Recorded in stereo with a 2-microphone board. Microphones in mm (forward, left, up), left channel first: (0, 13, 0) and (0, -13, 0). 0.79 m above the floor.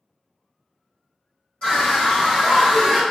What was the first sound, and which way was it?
A scream, 40° left (ahead or behind).